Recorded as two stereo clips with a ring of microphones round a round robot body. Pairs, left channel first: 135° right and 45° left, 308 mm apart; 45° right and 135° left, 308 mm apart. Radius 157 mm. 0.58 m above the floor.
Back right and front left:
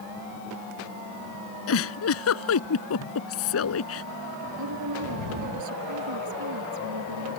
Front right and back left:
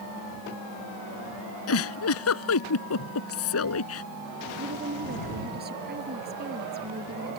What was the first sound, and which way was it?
A giggle, 90° right.